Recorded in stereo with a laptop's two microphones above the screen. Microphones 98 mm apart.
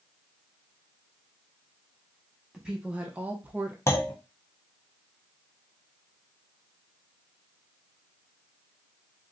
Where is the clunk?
30° left (ahead or behind), 0.7 m.